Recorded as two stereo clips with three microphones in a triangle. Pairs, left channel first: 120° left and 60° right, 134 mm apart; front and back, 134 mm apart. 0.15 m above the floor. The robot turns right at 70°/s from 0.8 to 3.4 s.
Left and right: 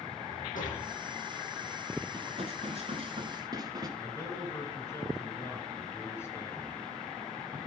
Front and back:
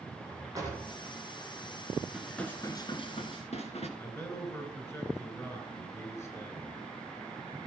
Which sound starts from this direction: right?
Dishes clattering, at 2.1 s.